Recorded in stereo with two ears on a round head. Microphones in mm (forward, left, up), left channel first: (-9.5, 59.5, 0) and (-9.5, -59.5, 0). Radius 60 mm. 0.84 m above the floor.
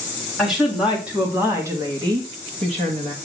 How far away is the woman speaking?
About 1.9 m.